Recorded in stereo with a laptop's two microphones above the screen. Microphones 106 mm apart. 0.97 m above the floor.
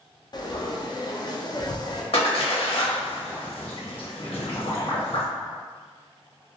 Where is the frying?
40° left (ahead or behind), 0.5 m.